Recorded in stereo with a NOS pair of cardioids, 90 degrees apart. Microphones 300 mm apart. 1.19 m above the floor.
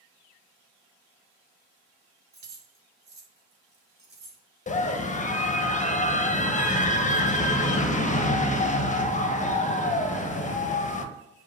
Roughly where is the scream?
Ahead left.